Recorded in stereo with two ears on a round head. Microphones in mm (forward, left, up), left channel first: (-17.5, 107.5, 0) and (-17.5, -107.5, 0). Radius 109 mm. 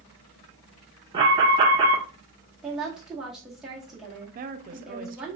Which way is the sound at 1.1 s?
20° right (ahead or behind).